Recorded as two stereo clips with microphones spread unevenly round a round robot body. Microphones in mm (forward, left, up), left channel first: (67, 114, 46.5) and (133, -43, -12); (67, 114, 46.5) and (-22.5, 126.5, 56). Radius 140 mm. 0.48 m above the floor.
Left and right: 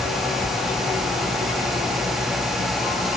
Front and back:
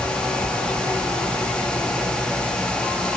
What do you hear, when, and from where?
Only background noise.